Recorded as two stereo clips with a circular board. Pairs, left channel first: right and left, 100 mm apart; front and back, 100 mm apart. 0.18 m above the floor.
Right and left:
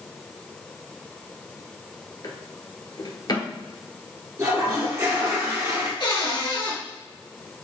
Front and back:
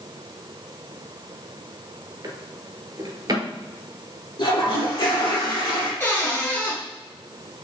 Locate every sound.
2.2 s a drawer: 135° right, 0.9 m
4.4 s a toilet flushing: 35° left, 2.0 m
6.0 s a cupboard door: 65° right, 2 m